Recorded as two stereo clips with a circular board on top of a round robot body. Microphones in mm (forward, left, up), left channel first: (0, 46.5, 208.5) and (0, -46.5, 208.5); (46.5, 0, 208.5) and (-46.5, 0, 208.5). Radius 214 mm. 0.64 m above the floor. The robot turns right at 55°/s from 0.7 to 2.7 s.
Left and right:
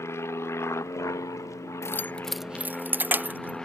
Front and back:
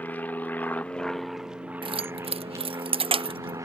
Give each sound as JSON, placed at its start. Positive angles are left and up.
{"t": 0.0, "sound": "an aircraft", "azimuth_deg": 60}
{"t": 1.8, "sound": "keys jangling", "azimuth_deg": 150}